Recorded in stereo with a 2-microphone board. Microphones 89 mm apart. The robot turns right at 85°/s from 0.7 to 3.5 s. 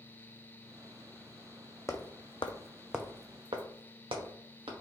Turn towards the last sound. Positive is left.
turn(degrees=-85)